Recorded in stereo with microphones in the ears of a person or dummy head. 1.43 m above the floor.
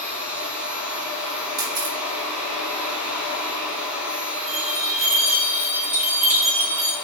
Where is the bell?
5° right (ahead or behind), 1.7 m.